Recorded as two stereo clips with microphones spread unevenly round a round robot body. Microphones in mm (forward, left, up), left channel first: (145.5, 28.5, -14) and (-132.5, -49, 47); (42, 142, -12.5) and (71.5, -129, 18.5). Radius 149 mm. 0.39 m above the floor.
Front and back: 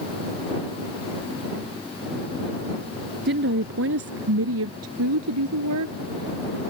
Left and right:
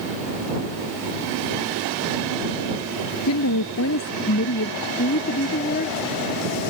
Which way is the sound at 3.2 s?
140° left.